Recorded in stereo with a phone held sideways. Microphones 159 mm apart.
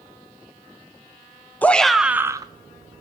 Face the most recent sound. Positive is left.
turn(degrees=-45)  # may be behind; listen again after turning